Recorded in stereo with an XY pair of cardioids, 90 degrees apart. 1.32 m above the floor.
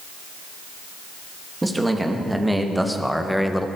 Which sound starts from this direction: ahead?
A man speaking, at 1.6 s.